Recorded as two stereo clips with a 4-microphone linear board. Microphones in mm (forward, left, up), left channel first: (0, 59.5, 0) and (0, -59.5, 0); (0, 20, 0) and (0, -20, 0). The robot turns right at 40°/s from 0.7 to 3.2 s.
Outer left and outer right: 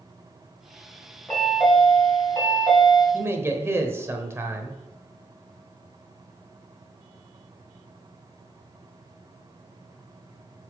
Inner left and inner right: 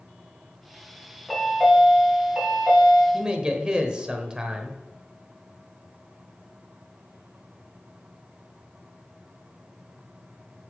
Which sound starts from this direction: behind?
A chime, at 1.3 s.